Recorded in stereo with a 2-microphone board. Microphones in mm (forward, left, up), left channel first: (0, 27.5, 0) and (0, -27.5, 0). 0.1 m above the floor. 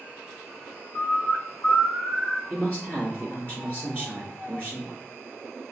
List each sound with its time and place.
0.9 s a bird: 65° left (ahead or behind), 1.0 m
2.5 s a man speaking: 30° left (ahead or behind), 2.0 m